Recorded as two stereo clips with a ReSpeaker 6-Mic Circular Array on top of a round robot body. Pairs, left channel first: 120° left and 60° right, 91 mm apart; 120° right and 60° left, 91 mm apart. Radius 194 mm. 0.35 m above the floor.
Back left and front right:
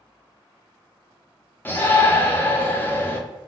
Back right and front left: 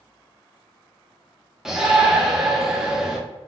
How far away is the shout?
About 1.0 m.